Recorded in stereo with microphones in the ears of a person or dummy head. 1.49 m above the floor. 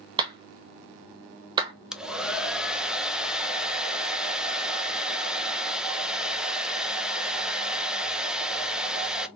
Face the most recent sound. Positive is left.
turn(degrees=-5)  # may be behind; listen again after turning